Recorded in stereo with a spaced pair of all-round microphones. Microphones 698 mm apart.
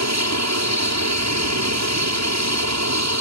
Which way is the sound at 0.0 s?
20° right (ahead or behind).